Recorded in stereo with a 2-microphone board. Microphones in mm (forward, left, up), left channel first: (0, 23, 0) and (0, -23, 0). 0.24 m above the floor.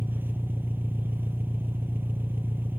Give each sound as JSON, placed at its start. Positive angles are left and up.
{"t": 0.0, "sound": "an engine running", "side_deg": -50, "distance_m": 1.3}